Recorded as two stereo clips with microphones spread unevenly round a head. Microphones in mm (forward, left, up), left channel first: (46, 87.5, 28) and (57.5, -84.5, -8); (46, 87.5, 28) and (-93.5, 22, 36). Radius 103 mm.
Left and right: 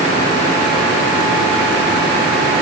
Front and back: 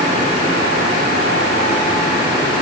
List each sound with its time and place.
Only background noise.